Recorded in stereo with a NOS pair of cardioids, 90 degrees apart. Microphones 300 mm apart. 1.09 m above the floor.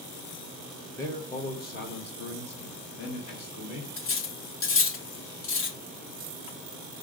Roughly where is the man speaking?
Ahead.